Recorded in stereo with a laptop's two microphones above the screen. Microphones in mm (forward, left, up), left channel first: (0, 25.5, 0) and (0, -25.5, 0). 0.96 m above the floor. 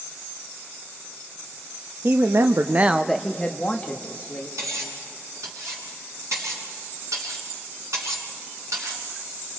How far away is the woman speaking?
About 1.1 m.